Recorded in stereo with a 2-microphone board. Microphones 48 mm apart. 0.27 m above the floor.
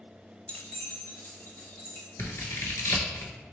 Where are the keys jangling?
25° left (ahead or behind), 0.6 m; by 2.1 s 65° left (ahead or behind), 1.5 m.